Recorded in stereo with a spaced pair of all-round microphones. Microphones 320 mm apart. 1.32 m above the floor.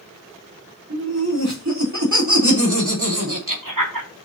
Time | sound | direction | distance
0.9 | laughter | 50° right (ahead or behind) | 4 m